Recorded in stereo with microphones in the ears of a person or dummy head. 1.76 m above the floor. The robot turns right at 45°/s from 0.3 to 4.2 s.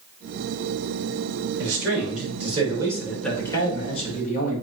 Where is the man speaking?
70° right, 3.5 m; by 4.6 s 50° left, 3.5 m.